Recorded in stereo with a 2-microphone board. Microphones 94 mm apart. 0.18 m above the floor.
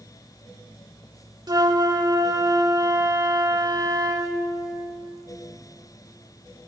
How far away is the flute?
About 0.7 m.